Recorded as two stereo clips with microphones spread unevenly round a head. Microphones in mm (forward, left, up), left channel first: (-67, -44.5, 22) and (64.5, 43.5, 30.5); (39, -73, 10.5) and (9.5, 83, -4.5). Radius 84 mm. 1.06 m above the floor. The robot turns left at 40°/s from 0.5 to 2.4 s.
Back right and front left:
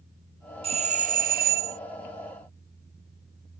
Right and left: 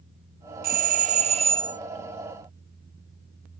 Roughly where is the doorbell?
Left.